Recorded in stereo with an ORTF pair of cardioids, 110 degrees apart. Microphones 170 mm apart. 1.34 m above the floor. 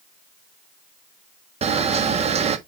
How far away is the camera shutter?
About 1.4 m.